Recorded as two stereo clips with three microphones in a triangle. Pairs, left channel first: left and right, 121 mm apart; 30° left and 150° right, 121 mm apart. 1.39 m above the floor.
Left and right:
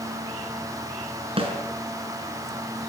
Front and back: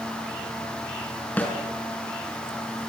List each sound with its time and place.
1.4 s a snare drum: 45° right, 6 m